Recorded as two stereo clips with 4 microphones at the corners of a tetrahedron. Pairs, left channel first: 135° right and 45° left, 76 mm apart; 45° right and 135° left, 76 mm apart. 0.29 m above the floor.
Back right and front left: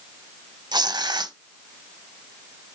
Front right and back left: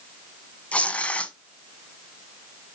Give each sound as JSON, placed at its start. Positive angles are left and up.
{"t": 0.7, "sound": "tearing paper", "azimuth_deg": 25, "distance_m": 0.7}